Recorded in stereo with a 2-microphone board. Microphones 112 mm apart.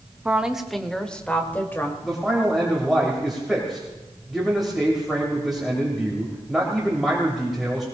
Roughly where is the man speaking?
Centre.